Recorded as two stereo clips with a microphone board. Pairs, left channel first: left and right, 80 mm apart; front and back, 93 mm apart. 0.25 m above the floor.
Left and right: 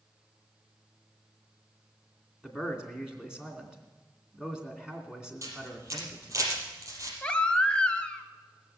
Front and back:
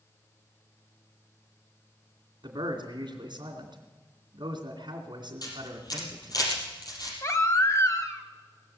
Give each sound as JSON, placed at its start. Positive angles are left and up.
{"t": 2.4, "sound": "a man speaking", "azimuth_deg": -170, "distance_m": 2.5}
{"t": 5.4, "sound": "a camera shutter", "azimuth_deg": -45, "distance_m": 4.5}
{"t": 7.2, "sound": "a baby crying", "azimuth_deg": 25, "distance_m": 1.0}